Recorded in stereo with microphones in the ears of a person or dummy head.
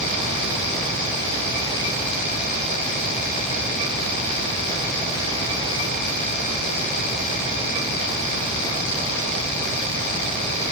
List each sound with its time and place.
Only background noise.